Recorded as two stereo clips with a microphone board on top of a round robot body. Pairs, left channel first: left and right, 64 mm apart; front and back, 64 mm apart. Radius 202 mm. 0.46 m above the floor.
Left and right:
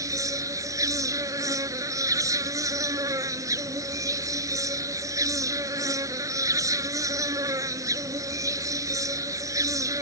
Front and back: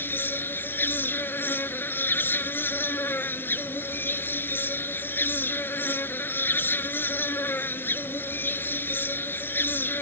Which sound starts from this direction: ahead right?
An insect, at 0.0 s.